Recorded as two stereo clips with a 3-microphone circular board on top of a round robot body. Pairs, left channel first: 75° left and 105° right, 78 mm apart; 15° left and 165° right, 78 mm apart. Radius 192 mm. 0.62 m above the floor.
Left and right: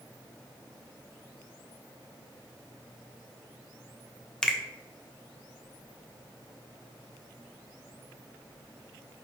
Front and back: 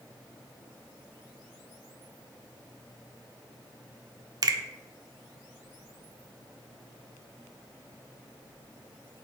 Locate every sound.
4.4 s a finger snap: 155° left, 0.5 m